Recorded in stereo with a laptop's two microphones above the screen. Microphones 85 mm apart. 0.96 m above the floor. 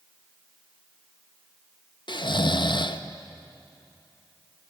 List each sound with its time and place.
2.1 s snoring: 60° left (ahead or behind), 0.6 m